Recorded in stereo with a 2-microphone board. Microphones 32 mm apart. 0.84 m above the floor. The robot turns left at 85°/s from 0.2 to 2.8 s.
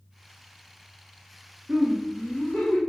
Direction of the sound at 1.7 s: 135° right.